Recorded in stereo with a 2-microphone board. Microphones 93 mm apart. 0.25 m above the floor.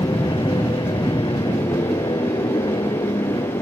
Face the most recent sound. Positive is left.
turn(degrees=70)  # may be behind; listen again after turning